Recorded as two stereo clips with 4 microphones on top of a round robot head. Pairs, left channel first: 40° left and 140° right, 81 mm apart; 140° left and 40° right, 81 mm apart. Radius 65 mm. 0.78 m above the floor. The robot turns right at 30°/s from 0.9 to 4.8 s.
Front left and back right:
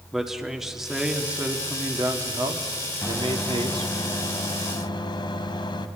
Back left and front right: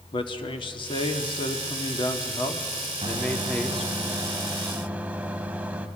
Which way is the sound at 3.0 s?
30° right.